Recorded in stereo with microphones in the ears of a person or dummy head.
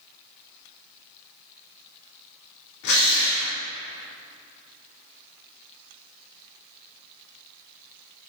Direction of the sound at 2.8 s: 70° left (ahead or behind).